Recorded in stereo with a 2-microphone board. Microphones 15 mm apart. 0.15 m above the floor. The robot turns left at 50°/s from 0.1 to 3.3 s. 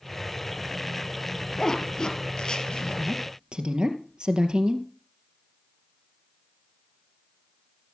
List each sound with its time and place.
1.6 s a zipper: 30° left (ahead or behind), 2.5 m; by 3.1 s 60° left (ahead or behind), 2.5 m
3.0 s a woman speaking: 65° right (ahead or behind), 3 m; by 4.9 s 55° right (ahead or behind), 3 m